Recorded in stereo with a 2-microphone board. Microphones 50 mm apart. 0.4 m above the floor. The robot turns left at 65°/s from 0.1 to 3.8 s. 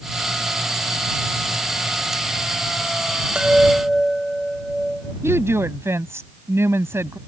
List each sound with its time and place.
3.4 s a chime: 20° right (ahead or behind); by 5.1 s centre (ahead or behind)
5.2 s a woman speaking: 60° right (ahead or behind)